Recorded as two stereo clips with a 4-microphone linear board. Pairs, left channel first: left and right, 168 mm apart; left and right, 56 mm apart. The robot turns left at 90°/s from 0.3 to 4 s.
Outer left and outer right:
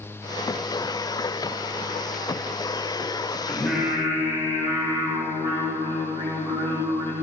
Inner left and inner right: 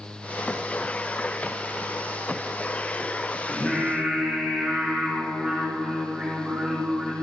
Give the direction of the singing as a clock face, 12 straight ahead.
11 o'clock.